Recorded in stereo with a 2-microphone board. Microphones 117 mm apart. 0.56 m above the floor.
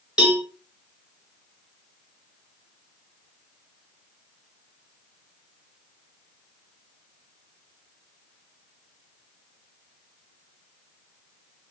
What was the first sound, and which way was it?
A cowbell, 10° right (ahead or behind).